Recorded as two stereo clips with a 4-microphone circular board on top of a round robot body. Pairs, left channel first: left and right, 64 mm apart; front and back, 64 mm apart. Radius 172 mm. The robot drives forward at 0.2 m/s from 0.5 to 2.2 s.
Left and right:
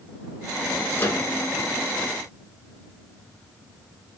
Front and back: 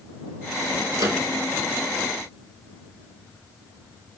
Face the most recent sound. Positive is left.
turn(degrees=145)